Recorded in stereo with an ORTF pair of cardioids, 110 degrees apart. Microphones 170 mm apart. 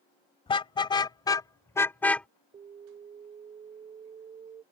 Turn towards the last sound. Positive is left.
turn(degrees=-40)